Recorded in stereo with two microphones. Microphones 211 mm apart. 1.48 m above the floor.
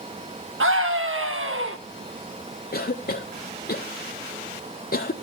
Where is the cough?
45° left (ahead or behind), 0.6 m.